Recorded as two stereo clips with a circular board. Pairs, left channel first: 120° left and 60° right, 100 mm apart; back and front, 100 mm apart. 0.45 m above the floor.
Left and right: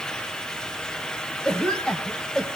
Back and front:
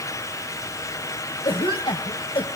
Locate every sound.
1.4 s a cough: 160° right, 2 m